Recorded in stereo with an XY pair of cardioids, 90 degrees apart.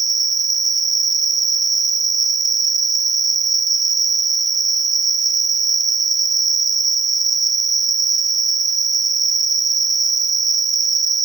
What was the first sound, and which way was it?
An insect, 40° right.